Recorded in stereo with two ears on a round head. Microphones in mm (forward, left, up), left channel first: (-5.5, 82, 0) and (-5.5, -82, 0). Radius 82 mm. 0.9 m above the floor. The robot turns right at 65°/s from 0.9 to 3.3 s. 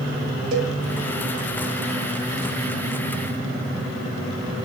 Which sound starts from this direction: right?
A cowbell, at 0.5 s.